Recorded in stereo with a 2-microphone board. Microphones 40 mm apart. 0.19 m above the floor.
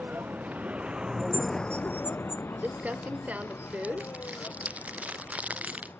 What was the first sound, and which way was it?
A vehicle, 50° right (ahead or behind).